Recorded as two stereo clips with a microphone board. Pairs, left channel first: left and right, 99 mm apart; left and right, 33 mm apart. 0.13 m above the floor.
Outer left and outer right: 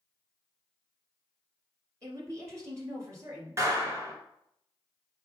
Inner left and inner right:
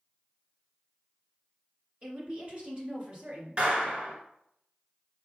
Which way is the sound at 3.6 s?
30° right (ahead or behind).